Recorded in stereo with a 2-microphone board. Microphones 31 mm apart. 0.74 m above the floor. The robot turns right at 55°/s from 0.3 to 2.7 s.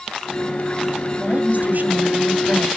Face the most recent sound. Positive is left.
turn(degrees=-65)